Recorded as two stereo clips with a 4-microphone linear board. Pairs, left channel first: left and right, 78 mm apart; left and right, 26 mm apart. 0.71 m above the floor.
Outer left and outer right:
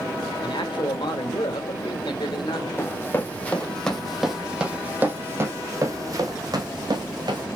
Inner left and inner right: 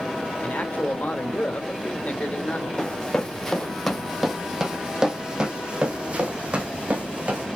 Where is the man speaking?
75° left (ahead or behind), 2.5 m.